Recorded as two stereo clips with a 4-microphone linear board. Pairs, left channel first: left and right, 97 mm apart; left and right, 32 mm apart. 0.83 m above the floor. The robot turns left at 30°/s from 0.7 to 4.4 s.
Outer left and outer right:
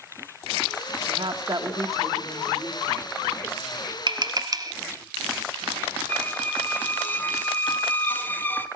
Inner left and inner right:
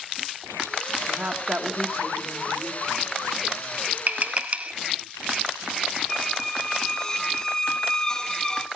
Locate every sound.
1.1 s a woman speaking: 55° right (ahead or behind), 2.5 m; by 3.8 s 20° left (ahead or behind), 2.5 m
4.1 s tapping: 45° right (ahead or behind), 1.3 m; by 4.7 s 40° right (ahead or behind), 1.3 m
6.1 s a squeak: 20° left (ahead or behind), 0.8 m